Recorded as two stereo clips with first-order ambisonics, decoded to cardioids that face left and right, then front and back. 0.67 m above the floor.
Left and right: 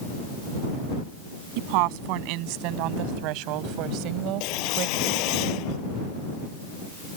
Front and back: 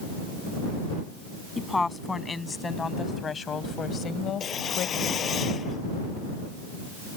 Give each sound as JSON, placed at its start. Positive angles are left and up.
{"t": 1.6, "sound": "a woman speaking", "azimuth_deg": -80}
{"t": 4.4, "sound": "a whoosh", "azimuth_deg": 65}